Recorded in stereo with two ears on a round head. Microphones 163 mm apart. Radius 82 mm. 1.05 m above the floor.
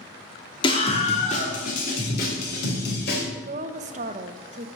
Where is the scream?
25° left (ahead or behind), 2.5 m; by 3.2 s 60° left (ahead or behind), 5 m.